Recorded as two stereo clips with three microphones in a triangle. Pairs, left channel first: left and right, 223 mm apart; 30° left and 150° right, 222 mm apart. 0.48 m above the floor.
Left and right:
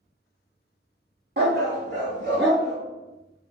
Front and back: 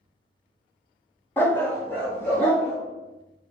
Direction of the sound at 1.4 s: 50° right.